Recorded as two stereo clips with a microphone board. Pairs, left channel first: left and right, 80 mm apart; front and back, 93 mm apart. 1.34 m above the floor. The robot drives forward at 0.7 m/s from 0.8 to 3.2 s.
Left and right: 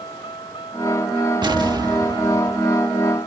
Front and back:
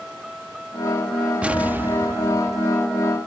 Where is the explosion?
105° right; by 2.7 s 130° right.